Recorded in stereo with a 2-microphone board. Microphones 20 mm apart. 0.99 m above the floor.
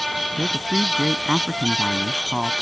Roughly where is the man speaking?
Right.